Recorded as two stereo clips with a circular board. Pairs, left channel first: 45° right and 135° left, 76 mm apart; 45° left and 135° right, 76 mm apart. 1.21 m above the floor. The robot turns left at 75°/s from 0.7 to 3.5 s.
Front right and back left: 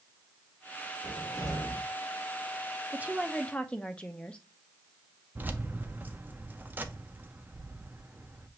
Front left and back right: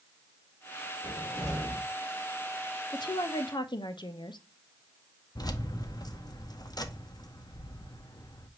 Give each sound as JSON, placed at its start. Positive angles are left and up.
{"t": 1.0, "sound": "a cupboard door", "azimuth_deg": 170, "distance_m": 2.5}
{"t": 2.9, "sound": "a woman speaking", "azimuth_deg": 75, "distance_m": 0.7}
{"t": 5.3, "sound": "keys jangling", "azimuth_deg": 70, "distance_m": 0.6}